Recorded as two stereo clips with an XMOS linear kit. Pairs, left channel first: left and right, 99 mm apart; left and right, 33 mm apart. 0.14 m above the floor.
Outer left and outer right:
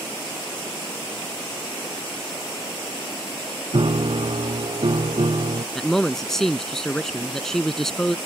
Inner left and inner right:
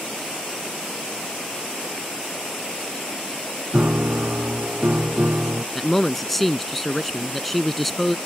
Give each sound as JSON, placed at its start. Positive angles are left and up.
{"t": 3.7, "sound": "a piano", "side_deg": -65}
{"t": 5.8, "sound": "a man speaking", "side_deg": 5}